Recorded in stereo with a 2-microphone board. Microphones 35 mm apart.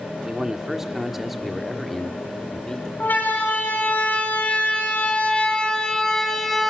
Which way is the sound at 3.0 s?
60° left (ahead or behind).